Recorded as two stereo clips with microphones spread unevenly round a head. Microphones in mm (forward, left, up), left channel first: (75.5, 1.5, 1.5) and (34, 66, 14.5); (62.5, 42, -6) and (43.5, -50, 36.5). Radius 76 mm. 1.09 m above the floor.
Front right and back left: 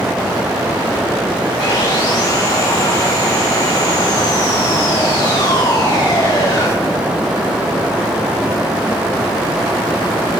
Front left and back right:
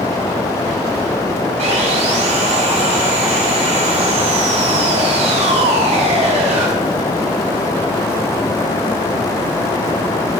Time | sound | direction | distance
1.6 | sawing | 110° right | 3.5 m